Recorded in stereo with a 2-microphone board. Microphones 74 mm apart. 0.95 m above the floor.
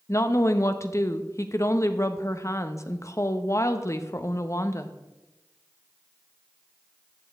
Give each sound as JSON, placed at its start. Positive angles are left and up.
{"t": 0.1, "sound": "a woman speaking", "side_deg": 40, "distance_m": 0.7}